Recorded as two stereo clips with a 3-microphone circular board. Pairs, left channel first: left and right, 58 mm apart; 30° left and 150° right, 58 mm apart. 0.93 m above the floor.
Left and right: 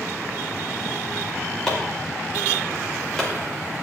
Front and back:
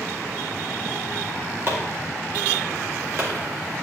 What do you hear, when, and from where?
1.7 s chopping: 170° left, 2.5 m